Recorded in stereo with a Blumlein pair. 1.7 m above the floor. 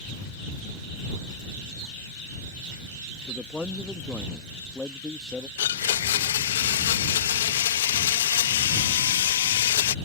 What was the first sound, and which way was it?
A man speaking, 5° left.